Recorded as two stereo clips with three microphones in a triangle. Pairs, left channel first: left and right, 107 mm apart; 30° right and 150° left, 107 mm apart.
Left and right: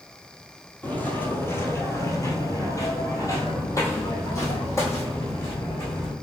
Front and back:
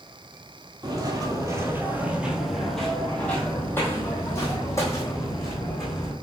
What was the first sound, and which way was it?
Footsteps, 155° left.